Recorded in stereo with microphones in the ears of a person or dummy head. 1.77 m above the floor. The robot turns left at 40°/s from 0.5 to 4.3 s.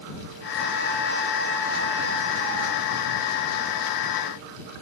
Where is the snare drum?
No snare drum in this recording.